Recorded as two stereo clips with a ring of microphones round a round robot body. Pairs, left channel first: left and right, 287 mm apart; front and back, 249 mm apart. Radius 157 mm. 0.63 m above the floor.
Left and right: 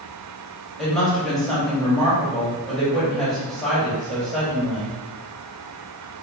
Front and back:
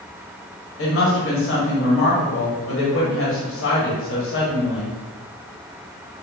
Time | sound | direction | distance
0.8 | a woman speaking | straight ahead | 1.5 m